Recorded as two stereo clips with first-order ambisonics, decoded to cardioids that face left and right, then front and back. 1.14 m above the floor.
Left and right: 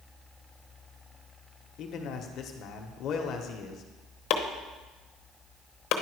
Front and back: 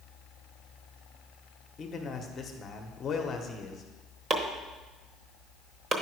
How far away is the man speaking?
About 1.0 m.